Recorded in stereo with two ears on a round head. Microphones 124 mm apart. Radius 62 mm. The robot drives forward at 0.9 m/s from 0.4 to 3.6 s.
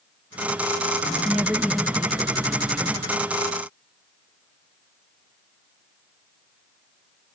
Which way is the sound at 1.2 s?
5° right (ahead or behind).